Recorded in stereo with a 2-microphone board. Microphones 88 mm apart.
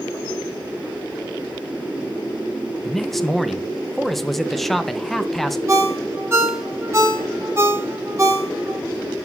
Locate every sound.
2.8 s a man speaking: centre (ahead or behind), 0.5 m
5.7 s a ringtone: 30° right (ahead or behind), 1.1 m